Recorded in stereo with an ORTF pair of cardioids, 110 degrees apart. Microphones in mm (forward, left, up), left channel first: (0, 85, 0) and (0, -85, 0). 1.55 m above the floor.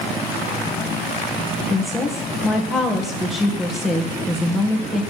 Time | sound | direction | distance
1.7 | a woman speaking | straight ahead | 1.6 m